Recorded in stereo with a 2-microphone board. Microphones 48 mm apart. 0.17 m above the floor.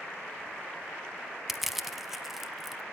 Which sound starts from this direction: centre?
Crushing, at 1.5 s.